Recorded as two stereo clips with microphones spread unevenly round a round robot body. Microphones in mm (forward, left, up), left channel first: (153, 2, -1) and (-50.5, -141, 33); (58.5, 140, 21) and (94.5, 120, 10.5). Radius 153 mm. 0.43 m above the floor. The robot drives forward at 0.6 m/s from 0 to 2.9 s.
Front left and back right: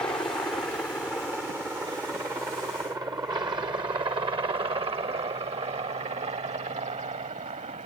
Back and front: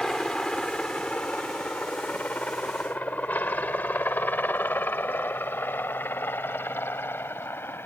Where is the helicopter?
95° left; by 7.9 s 150° left.